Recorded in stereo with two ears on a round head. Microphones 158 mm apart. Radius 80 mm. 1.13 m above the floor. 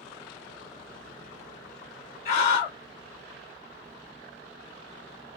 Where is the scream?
40° left (ahead or behind), 2.5 m.